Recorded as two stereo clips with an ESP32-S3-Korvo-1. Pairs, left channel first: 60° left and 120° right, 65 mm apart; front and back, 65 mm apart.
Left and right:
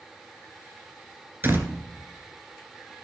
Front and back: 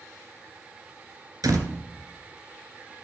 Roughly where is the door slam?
Behind.